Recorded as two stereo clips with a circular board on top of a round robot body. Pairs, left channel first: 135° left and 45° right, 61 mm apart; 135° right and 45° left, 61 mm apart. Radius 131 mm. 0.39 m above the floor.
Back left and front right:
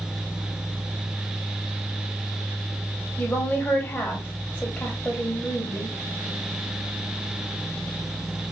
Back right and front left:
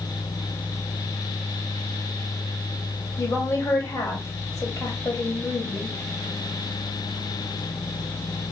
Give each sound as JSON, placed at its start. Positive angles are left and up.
{"t": 3.2, "sound": "a woman speaking", "azimuth_deg": -165, "distance_m": 3.0}